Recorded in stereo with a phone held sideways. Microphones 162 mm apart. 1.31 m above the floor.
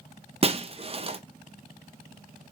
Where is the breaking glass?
35° right (ahead or behind), 0.6 m.